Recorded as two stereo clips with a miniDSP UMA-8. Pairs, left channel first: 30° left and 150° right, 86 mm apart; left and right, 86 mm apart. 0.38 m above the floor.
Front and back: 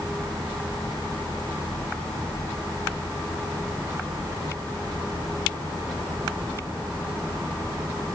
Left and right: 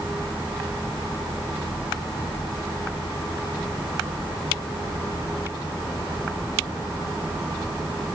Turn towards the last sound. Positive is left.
No sound to turn to.